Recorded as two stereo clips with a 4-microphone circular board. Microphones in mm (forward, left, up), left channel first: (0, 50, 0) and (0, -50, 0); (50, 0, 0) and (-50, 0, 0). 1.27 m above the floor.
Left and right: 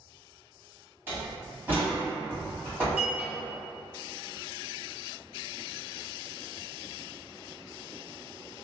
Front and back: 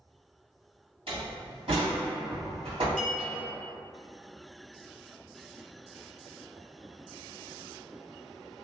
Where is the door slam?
160° right, 1.5 m.